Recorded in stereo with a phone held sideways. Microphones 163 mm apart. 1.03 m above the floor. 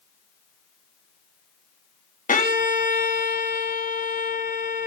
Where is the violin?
55° left (ahead or behind), 1.3 m.